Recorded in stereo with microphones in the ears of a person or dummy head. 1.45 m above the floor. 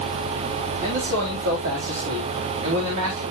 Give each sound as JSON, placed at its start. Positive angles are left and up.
{"t": 0.8, "sound": "a man speaking", "side_deg": -45, "distance_m": 4.5}